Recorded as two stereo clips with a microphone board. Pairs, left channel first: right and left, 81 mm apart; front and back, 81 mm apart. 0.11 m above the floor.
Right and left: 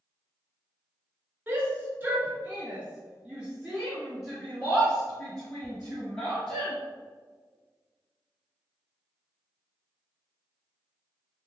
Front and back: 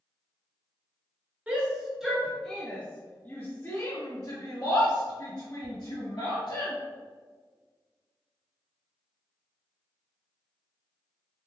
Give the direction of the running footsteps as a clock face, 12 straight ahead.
No running footsteps in this recording.